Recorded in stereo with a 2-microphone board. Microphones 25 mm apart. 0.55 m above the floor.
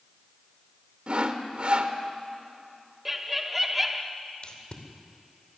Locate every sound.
1.1 s sawing: 45° right (ahead or behind), 1.3 m
3.0 s laughter: 10° right (ahead or behind), 0.7 m
4.4 s tape being pulled: 45° left (ahead or behind), 2.5 m